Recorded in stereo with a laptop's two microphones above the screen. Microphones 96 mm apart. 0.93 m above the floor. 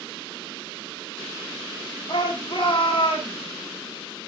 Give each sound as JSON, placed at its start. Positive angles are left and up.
{"t": 2.1, "sound": "a shout", "side_deg": 55, "distance_m": 1.9}